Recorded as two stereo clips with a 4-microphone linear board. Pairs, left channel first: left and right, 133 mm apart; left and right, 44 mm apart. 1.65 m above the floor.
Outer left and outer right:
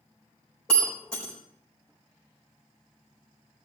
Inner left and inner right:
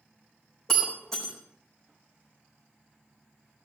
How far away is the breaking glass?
About 4 m.